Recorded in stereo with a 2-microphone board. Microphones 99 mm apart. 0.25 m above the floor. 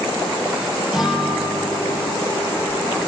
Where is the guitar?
5° right (ahead or behind), 4.5 m.